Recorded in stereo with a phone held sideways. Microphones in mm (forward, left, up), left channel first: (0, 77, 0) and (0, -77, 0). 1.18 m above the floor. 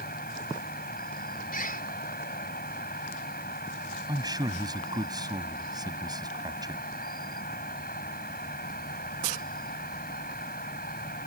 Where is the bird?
70° left (ahead or behind).